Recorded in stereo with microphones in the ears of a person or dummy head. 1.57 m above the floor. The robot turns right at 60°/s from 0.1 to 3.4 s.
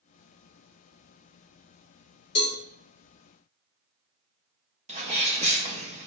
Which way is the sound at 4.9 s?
35° right (ahead or behind).